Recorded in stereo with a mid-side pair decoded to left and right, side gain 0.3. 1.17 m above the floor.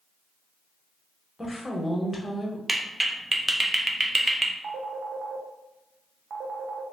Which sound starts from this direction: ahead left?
A woman speaking, at 1.4 s.